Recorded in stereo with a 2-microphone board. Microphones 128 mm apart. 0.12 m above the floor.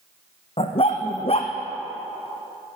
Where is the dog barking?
50° left (ahead or behind), 2 m.